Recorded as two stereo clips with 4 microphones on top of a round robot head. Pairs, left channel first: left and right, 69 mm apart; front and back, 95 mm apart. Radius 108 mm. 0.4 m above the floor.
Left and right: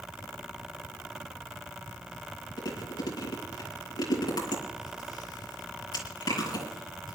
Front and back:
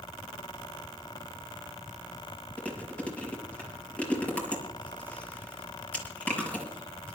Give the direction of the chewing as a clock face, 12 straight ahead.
9 o'clock.